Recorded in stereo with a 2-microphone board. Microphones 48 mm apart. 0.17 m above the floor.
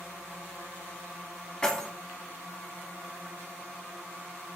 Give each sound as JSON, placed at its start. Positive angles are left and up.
{"t": 1.6, "sound": "keys jangling", "side_deg": 15, "distance_m": 1.1}